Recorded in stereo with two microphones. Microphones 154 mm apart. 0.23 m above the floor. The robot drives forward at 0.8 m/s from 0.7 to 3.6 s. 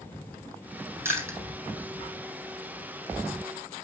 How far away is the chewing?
About 3.5 m.